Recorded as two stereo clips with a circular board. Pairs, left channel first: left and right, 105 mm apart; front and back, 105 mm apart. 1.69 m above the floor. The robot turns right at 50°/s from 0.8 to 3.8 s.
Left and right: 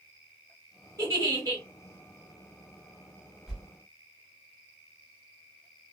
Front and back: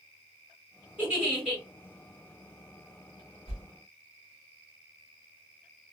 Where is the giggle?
115° right, 1.6 m; by 1.6 s 80° right, 1.6 m.